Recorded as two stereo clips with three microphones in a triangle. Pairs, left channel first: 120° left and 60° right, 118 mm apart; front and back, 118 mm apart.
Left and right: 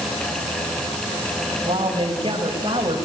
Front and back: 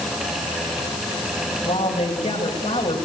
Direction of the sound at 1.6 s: 15° right.